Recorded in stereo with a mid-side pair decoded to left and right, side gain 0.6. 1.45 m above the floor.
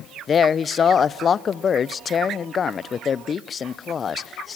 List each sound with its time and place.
0.3 s a man speaking: 35° left, 0.7 m